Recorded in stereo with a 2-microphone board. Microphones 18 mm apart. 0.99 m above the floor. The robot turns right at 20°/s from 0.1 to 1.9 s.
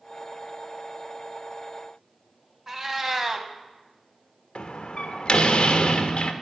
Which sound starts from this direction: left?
A door slam, at 4.5 s.